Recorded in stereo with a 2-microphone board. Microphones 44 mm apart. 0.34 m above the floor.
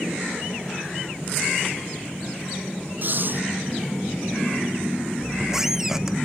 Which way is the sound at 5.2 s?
10° right (ahead or behind).